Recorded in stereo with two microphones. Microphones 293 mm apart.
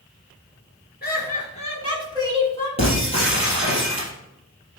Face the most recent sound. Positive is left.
turn(degrees=20)  # may be behind; listen again after turning